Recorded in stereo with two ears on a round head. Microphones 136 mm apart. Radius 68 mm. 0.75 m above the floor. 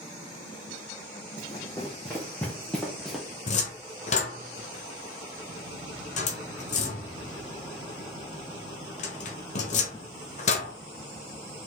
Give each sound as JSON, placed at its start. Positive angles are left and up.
{"t": 1.4, "sound": "running footsteps", "side_deg": 20, "distance_m": 2.5}
{"t": 3.5, "sound": "a cupboard door", "side_deg": 50, "distance_m": 1.1}